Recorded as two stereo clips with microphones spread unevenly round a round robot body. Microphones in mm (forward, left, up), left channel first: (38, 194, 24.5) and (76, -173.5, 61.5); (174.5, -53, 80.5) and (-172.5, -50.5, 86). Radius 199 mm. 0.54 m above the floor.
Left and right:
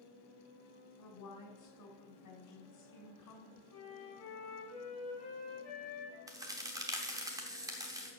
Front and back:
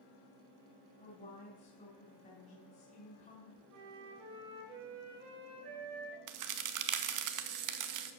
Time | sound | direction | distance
1.0 | a woman speaking | 65° left | 2.5 m
3.7 | a flute | 150° left | 3 m
6.3 | a crack | 165° right | 0.9 m